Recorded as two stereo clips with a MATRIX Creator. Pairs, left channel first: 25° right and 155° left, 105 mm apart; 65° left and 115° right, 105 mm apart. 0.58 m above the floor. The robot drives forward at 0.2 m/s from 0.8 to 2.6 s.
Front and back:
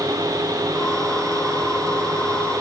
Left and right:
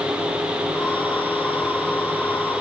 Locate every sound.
Only background noise.